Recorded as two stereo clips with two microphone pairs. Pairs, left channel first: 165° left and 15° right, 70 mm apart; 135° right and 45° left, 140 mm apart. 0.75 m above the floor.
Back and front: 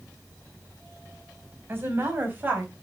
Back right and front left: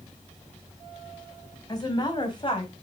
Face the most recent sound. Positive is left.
turn(degrees=-80)